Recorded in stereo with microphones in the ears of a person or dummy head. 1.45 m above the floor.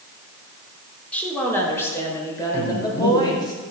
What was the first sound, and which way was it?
A woman speaking, 10° left (ahead or behind).